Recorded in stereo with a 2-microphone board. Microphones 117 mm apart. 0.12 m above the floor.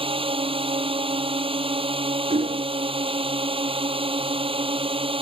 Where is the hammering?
80° right.